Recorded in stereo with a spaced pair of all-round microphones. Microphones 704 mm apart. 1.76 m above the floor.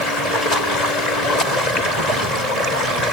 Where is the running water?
70° left (ahead or behind).